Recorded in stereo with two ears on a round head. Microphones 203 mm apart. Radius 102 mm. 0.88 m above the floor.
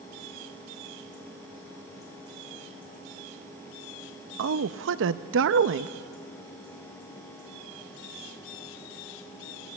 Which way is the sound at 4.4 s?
60° right (ahead or behind).